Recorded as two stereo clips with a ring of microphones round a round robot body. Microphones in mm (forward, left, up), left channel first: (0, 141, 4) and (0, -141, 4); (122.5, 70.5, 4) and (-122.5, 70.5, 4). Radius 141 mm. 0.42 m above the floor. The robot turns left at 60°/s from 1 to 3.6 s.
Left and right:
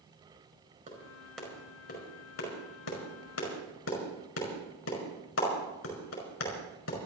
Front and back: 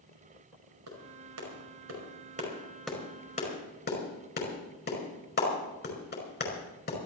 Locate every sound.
0.9 s a clap: 160° right, 5 m; by 7.0 s 45° left, 5 m